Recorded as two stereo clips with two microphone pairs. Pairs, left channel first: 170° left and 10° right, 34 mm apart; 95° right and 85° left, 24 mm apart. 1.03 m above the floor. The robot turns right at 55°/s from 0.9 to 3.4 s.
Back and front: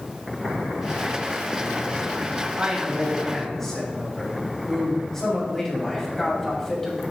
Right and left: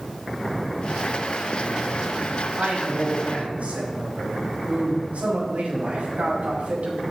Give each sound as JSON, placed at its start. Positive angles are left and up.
{"t": 2.6, "sound": "a man speaking", "azimuth_deg": 45, "distance_m": 6.5}